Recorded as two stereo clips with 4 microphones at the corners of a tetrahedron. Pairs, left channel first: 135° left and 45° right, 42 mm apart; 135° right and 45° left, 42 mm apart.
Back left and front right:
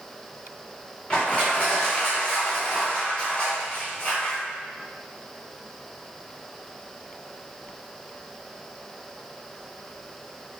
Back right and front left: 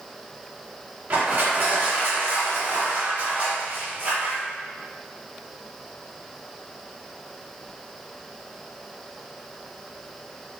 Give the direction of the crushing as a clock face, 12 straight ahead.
10 o'clock.